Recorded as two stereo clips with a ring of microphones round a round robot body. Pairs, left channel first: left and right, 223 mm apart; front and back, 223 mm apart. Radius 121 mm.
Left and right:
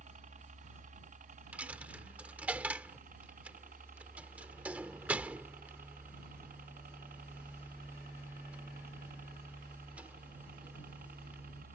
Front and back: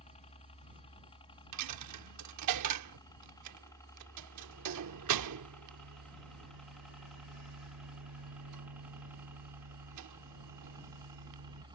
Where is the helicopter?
50° right; by 11.7 s 115° right.